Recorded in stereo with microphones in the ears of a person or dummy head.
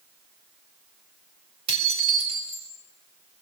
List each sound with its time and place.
1.7 s dishes clattering: 30° right (ahead or behind), 3.5 m